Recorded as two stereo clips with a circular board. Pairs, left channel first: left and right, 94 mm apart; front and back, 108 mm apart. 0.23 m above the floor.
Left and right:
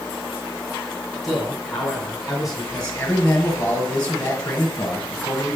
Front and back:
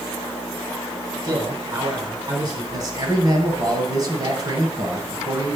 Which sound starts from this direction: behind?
A man speaking, at 1.2 s.